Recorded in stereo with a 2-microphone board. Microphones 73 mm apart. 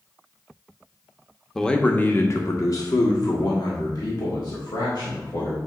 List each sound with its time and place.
1.6 s a man speaking: 5° left (ahead or behind), 0.8 m; by 5.6 s 75° left (ahead or behind), 2.5 m